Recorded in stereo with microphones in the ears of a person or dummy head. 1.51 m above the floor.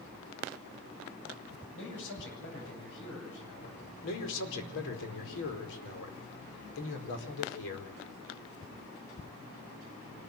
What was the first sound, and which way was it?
A man speaking, 75° left (ahead or behind).